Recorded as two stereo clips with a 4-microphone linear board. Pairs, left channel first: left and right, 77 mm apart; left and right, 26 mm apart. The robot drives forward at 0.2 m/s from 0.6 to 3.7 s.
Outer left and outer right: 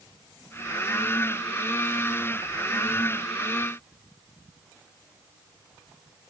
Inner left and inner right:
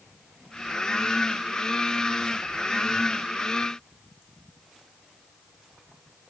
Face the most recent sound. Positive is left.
No sound to turn to.